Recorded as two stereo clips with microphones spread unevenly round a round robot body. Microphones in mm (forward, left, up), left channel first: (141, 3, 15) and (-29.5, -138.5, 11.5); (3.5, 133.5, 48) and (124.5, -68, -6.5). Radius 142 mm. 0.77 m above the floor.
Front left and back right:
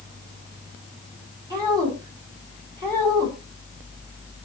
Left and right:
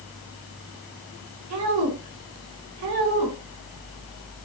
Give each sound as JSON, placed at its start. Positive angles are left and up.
{"t": 1.5, "sound": "a woman speaking", "azimuth_deg": -65, "distance_m": 5.5}